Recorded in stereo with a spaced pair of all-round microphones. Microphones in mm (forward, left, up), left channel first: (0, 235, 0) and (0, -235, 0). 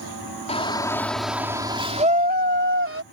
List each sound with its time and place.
0.5 s a shout: 15° left (ahead or behind); by 3.0 s 30° right (ahead or behind)